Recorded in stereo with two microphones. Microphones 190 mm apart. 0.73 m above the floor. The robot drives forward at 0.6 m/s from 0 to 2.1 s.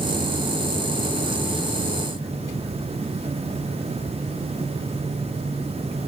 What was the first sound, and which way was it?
Only background noise.